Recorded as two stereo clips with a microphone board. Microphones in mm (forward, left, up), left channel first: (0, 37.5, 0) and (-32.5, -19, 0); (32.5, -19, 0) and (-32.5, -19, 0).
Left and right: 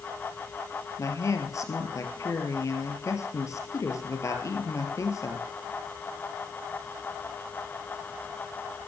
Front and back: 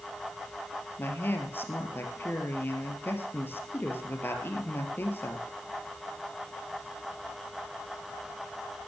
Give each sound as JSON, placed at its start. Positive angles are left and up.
{"t": 1.0, "sound": "a woman speaking", "azimuth_deg": 45, "distance_m": 2.0}